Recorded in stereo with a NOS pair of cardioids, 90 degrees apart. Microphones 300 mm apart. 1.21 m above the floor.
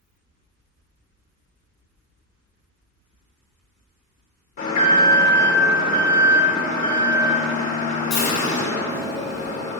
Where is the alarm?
65° left, 2.5 m.